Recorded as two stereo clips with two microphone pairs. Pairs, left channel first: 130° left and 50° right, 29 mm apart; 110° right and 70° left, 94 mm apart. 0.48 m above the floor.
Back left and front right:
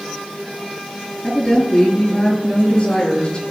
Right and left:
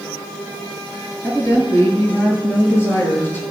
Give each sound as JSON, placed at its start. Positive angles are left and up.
{"t": 1.2, "sound": "a woman speaking", "azimuth_deg": -170, "distance_m": 7.5}